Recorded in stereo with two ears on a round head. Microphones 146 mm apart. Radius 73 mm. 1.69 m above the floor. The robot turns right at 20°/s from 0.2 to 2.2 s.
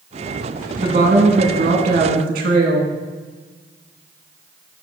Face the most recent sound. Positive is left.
turn(degrees=-60)  # may be behind; listen again after turning